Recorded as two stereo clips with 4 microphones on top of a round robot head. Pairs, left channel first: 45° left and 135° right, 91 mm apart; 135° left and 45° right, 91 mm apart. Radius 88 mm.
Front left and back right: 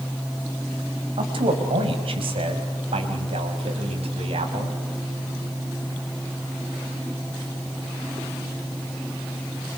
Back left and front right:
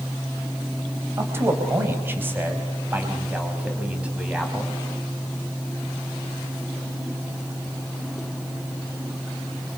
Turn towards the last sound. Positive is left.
turn(degrees=-125)